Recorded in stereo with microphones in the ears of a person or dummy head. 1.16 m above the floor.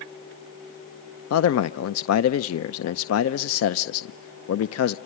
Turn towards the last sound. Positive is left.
turn(degrees=75)  # may be behind; listen again after turning